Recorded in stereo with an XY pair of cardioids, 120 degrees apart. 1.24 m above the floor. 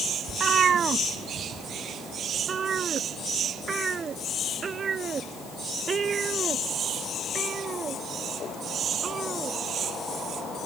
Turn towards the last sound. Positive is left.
turn(degrees=-35)